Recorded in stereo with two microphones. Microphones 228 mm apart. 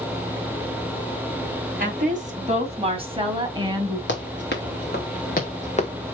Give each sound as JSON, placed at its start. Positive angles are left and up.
{"t": 1.8, "sound": "a woman speaking", "side_deg": -40, "distance_m": 2.5}
{"t": 4.1, "sound": "running footsteps", "side_deg": 55, "distance_m": 3.5}